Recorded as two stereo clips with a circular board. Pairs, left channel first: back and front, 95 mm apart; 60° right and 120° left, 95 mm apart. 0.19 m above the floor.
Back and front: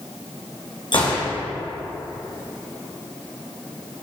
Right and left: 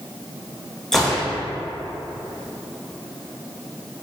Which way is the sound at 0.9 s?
145° right.